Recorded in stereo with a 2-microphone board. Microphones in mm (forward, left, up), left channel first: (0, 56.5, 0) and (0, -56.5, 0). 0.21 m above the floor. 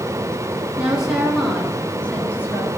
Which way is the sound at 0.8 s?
10° right (ahead or behind).